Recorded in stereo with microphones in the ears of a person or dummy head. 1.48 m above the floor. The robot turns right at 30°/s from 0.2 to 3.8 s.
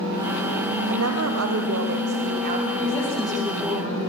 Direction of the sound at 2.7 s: 160° left.